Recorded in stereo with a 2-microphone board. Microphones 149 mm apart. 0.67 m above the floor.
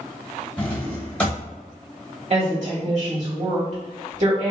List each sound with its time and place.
0.6 s a drawer: 10° left (ahead or behind), 1.0 m
2.3 s a woman speaking: 50° right (ahead or behind), 1.8 m